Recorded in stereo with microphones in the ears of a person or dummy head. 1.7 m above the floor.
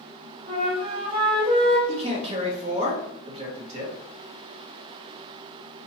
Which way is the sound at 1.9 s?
35° right (ahead or behind).